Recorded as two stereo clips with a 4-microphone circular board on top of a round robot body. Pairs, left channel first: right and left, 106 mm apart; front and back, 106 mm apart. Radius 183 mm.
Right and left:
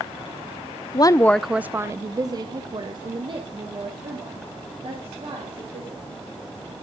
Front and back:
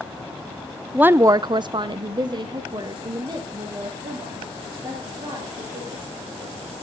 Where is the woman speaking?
105° right, 0.7 m; by 6.1 s 130° left, 4.5 m.